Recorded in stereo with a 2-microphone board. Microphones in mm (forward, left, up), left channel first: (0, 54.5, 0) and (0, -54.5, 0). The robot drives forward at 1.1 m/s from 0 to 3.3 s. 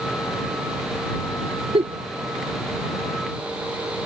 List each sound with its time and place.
1.7 s a giggle: 70° right (ahead or behind)